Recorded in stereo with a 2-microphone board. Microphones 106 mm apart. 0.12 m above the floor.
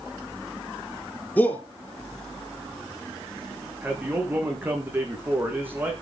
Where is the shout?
15° left (ahead or behind), 1.9 m.